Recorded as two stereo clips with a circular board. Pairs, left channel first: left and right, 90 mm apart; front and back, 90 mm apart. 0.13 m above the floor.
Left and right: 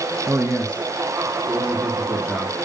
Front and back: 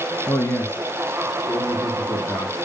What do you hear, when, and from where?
0.3 s a man speaking: 50° right, 2 m; by 2.5 s 25° left, 2 m